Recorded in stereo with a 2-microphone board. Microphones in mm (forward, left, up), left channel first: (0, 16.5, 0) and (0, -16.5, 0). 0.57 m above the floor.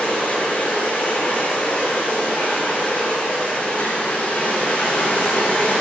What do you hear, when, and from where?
0.0 s running water: 70° left (ahead or behind), 6 m